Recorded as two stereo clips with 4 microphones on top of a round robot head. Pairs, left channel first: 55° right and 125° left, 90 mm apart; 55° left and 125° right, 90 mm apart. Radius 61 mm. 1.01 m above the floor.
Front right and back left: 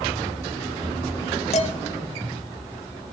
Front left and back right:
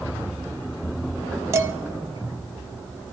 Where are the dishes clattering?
60° right, 1.0 m.